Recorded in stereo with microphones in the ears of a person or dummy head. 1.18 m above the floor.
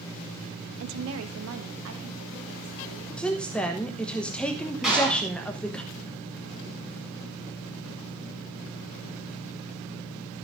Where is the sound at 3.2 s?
10° left (ahead or behind), 1.1 m.